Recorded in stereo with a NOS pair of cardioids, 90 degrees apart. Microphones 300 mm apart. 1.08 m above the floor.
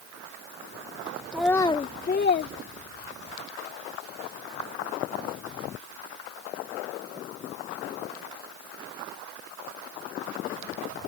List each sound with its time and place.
1.3 s a child speaking: 5° right; by 3.4 s 55° left